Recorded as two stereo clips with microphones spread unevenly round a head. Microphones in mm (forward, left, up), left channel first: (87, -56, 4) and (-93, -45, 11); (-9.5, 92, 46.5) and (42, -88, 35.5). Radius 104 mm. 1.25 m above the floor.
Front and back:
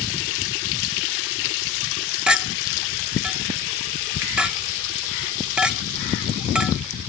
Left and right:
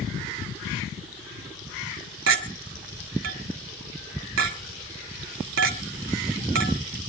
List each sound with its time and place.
2.3 s a clink: 100° right, 1.7 m